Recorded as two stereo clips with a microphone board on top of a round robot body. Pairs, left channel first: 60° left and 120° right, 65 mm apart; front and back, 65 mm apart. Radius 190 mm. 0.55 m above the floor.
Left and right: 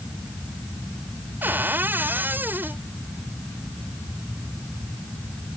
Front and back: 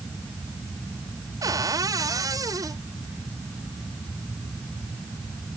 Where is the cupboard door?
175° right.